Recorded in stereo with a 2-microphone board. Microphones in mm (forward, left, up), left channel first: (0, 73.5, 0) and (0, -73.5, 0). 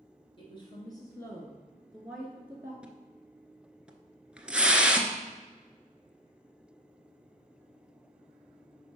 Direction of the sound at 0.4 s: 40° left (ahead or behind).